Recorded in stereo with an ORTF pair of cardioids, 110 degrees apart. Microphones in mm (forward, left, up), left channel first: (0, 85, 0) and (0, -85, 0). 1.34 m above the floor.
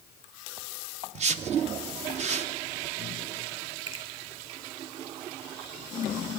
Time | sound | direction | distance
1.1 | a whoosh | 40° right | 0.8 m
3.9 | a finger snap | 35° right | 2 m